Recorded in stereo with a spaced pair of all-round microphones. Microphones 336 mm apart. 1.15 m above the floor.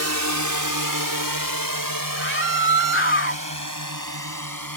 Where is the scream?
35° left (ahead or behind).